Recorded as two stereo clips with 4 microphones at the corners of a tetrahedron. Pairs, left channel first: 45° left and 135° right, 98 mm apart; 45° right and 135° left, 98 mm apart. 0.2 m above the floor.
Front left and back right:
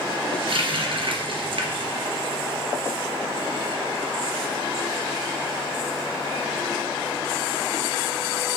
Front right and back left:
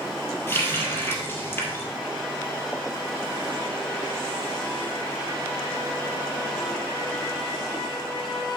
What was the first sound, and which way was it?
A running tap, 110° right.